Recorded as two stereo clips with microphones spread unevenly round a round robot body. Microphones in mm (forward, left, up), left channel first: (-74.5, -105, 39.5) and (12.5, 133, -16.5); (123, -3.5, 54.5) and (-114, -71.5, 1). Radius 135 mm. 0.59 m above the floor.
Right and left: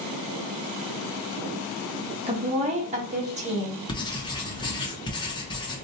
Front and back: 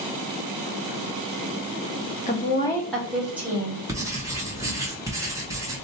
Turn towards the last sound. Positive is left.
turn(degrees=170)